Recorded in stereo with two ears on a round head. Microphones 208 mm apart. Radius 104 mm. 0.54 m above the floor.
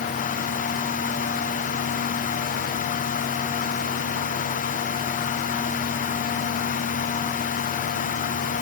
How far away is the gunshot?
I don't hear a gunshot.